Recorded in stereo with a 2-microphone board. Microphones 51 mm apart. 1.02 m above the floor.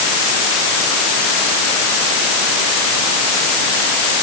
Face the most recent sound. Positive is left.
No sound to turn to.